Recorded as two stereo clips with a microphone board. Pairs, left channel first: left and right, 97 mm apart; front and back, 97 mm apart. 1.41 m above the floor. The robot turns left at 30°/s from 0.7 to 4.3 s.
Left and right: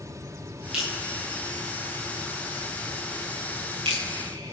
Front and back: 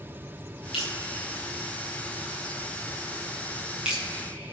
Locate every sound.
0.7 s dripping: 10° right, 8 m; by 4.5 s 115° right, 8 m